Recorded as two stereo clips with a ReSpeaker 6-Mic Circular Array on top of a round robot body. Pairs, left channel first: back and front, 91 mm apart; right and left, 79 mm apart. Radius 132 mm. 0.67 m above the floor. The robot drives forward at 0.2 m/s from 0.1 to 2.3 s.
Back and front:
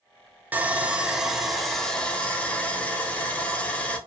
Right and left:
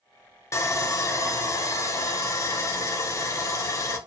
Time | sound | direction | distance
0.5 | sawing | 65° right | 0.7 m